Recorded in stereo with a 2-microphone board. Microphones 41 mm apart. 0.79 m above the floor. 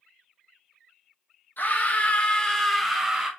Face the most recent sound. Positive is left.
turn(degrees=-15)  # may be behind; listen again after turning